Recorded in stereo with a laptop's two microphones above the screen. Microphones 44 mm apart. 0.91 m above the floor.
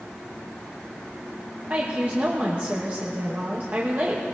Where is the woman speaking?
40° right (ahead or behind), 1.1 m.